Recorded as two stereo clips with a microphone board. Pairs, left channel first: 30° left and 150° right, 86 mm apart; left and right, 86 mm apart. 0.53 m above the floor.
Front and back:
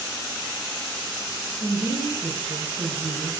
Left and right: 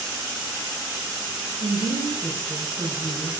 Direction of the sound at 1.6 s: 170° right.